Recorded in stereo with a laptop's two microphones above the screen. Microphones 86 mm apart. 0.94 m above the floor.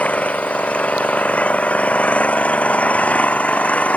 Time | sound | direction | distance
0.0 | an engine running | 15° left (ahead or behind) | ?